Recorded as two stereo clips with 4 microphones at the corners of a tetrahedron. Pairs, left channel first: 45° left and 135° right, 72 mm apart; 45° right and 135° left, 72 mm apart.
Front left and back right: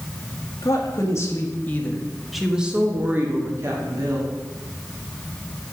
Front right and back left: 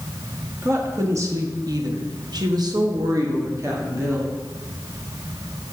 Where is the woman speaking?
85° left, 2 m; by 4.3 s 170° right, 2.5 m.